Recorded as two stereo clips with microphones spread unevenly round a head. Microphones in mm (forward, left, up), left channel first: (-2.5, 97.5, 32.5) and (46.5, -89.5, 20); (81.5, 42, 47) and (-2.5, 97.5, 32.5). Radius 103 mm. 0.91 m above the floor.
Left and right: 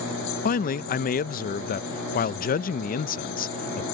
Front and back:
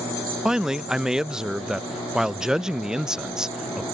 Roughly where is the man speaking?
Left.